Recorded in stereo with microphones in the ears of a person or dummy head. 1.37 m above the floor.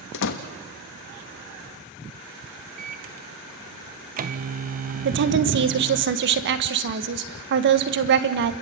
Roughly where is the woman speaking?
Right.